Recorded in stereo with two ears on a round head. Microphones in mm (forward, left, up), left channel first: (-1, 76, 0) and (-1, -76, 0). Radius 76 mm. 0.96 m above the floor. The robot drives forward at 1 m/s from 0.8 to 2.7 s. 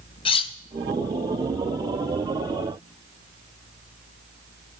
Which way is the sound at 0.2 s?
35° left (ahead or behind).